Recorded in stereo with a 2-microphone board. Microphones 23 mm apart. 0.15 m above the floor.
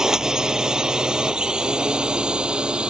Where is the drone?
30° right (ahead or behind); by 2.9 s 50° right (ahead or behind).